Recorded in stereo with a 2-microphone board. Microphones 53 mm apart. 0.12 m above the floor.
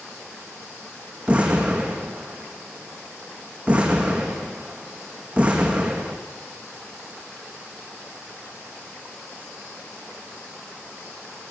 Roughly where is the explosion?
Right.